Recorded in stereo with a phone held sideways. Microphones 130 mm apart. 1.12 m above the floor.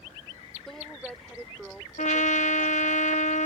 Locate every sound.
0.7 s a woman speaking: centre (ahead or behind); by 3.0 s 5° right (ahead or behind)
2.0 s a trumpet: 70° left (ahead or behind)